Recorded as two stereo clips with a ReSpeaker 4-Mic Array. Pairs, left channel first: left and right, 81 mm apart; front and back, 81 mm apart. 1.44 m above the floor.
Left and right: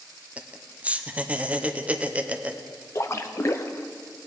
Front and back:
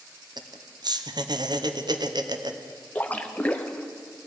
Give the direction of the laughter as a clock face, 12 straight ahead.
5 o'clock.